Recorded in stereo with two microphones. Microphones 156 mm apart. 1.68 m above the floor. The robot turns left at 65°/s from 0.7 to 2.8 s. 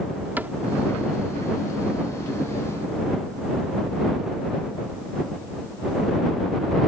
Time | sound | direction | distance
0.4 | a cupboard door | 10° right (ahead or behind) | ?